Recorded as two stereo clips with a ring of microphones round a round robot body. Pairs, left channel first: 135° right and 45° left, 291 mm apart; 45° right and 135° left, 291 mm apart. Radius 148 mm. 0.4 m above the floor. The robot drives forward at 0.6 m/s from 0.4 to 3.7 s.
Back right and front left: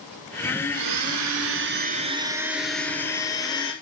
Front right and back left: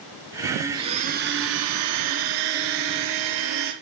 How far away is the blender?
About 0.9 m.